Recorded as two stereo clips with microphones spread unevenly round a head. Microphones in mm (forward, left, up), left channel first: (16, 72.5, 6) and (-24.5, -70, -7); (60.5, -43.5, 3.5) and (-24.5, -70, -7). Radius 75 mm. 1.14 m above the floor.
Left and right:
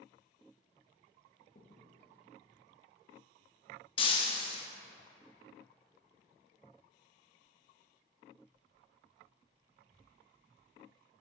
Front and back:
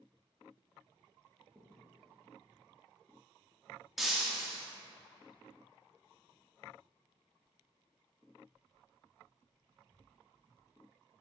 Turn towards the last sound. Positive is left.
turn(degrees=100)